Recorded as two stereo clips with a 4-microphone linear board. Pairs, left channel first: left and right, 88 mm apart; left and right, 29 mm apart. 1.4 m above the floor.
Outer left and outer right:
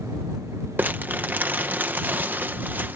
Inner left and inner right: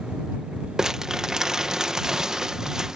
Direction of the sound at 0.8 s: 20° right (ahead or behind).